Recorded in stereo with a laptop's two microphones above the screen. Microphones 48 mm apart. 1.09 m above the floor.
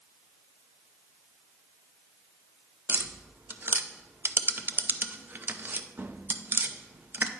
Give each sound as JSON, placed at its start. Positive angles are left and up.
{"t": 2.9, "sound": "tapping", "side_deg": -45, "distance_m": 0.6}